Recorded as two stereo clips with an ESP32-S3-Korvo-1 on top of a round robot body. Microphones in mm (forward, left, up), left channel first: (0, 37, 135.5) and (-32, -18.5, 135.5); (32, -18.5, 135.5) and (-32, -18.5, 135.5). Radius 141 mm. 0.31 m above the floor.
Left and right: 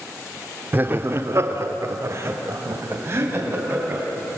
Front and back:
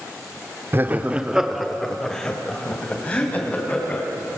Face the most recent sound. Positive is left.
turn(degrees=-65)